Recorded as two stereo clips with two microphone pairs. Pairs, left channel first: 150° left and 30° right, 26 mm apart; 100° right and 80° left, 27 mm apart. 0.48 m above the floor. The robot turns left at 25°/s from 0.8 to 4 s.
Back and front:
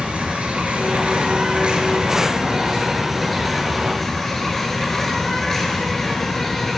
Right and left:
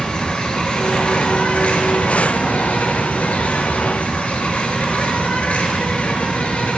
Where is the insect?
50° right, 1.1 m; by 6.8 s 130° right, 1.1 m.